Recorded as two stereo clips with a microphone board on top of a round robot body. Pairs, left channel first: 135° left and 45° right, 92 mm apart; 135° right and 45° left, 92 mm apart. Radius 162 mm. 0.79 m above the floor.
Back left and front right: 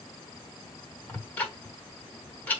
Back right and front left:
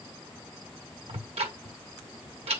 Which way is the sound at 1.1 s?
60° left.